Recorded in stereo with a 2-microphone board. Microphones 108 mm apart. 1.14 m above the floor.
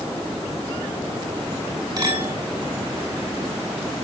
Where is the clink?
40° right (ahead or behind), 6.5 m.